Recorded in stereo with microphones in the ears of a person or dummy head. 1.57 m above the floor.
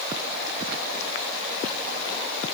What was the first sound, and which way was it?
Only background noise.